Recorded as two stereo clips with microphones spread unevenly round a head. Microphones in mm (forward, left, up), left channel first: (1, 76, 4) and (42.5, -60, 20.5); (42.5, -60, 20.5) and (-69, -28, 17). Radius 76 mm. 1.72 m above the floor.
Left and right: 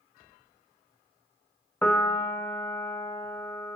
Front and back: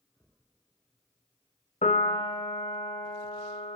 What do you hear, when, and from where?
1.8 s a piano: 25° left, 2 m